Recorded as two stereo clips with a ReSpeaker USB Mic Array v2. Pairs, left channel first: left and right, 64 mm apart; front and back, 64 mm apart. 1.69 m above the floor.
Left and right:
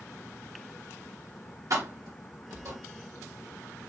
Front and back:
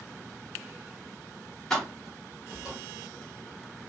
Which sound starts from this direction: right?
Keys jangling, at 1.7 s.